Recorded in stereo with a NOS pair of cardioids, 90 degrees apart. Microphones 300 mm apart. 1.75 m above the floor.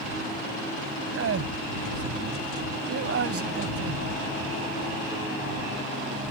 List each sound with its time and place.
1.1 s a man speaking: 50° right